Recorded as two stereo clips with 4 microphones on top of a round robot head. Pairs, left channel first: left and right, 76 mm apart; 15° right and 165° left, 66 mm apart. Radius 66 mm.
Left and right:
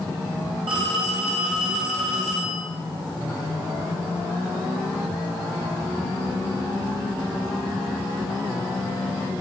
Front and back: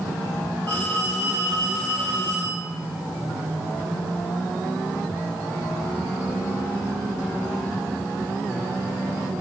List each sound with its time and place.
0.7 s a phone ringing: 85° right, 7.5 m